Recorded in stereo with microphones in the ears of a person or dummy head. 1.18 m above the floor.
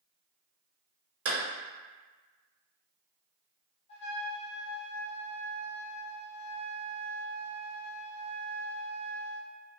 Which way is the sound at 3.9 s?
35° left (ahead or behind).